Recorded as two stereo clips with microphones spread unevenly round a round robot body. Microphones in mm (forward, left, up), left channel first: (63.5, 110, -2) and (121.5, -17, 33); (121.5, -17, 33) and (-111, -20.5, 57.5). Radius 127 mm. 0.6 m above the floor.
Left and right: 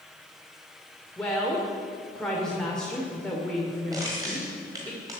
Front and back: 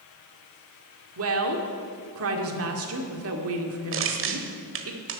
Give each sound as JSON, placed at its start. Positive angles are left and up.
{"t": 1.2, "sound": "a woman speaking", "azimuth_deg": -170, "distance_m": 2.0}
{"t": 3.9, "sound": "crushing", "azimuth_deg": -145, "distance_m": 1.3}